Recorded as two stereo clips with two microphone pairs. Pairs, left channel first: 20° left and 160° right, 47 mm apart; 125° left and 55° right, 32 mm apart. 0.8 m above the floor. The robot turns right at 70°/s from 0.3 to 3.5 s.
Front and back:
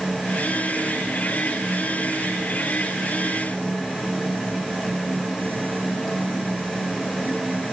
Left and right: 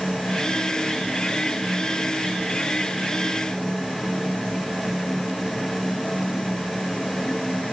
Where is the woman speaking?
No woman speaking in this recording.